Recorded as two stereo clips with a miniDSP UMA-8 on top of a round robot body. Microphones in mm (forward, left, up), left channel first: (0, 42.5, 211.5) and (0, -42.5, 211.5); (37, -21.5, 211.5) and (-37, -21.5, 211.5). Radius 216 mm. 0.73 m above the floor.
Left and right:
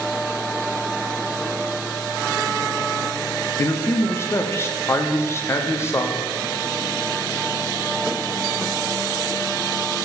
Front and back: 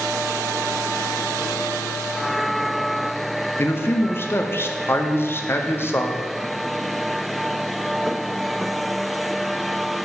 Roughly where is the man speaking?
Ahead left.